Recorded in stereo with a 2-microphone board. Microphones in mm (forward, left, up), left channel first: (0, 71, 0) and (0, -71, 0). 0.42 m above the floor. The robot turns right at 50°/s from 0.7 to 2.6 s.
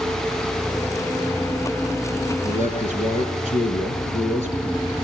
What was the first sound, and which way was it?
A man speaking, 65° left (ahead or behind).